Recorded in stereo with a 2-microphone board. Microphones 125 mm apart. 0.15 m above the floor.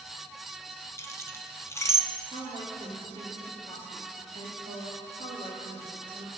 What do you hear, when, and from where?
1.0 s keys jangling: 25° left (ahead or behind), 0.8 m
2.3 s a woman speaking: 55° right (ahead or behind), 3 m